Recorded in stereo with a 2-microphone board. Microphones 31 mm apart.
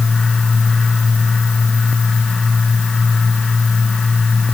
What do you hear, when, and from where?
Only background noise.